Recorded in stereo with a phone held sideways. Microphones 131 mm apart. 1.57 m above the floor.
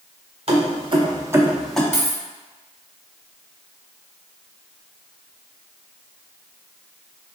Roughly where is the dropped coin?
Centre.